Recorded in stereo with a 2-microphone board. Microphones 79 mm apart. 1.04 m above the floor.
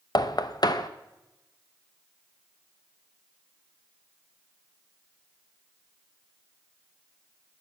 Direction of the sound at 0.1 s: 60° left (ahead or behind).